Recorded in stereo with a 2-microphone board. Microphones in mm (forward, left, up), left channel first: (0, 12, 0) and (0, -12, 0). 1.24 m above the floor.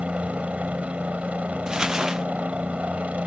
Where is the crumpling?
30° right (ahead or behind).